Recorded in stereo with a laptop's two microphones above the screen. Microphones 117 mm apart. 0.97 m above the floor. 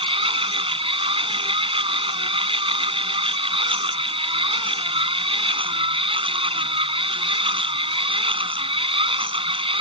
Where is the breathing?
I don't hear breathing.